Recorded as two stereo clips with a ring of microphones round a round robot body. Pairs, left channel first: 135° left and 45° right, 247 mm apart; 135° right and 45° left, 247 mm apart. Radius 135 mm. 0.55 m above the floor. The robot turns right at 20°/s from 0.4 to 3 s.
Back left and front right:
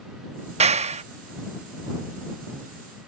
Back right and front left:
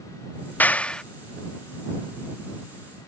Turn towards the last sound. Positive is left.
turn(degrees=-10)